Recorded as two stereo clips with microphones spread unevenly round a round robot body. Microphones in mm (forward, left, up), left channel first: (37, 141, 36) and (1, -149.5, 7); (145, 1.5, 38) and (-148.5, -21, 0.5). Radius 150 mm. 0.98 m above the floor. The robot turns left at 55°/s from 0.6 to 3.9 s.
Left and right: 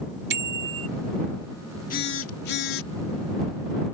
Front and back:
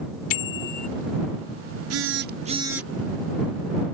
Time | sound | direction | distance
0.3 | a bicycle bell | 40° right | ?
1.9 | a phone buzzing | 150° left | ?